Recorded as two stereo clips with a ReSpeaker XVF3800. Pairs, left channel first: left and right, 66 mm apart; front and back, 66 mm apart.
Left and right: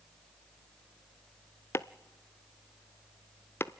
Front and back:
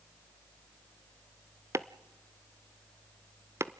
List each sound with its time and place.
1.7 s chopping: 140° left, 0.5 m